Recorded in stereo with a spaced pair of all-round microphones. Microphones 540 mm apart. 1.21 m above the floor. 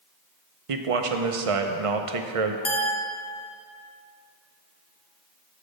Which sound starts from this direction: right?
A man speaking, at 0.7 s.